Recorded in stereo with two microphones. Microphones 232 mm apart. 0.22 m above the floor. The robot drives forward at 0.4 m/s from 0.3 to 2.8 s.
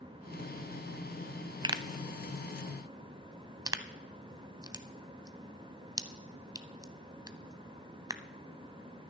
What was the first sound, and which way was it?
A pop, 20° right (ahead or behind).